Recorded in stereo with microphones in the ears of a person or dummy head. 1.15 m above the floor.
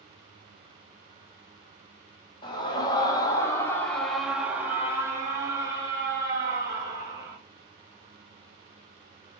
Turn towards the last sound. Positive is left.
turn(degrees=-25)  # may be behind; listen again after turning